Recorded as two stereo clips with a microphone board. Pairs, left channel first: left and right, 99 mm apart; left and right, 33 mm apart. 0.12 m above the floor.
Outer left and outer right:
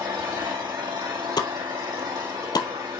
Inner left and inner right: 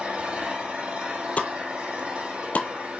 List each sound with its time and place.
0.0 s an engine running: 45° right (ahead or behind), 3.5 m
1.4 s a pop: 45° left (ahead or behind), 0.8 m